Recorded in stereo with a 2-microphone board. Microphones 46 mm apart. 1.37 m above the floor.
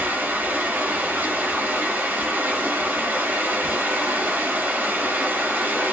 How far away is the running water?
About 1.4 m.